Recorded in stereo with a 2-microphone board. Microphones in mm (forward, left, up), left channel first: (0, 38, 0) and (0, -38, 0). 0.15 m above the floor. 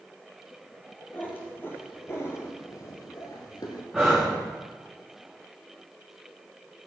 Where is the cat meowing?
25° left (ahead or behind), 2.5 m; by 3.8 s 65° left (ahead or behind), 1.7 m.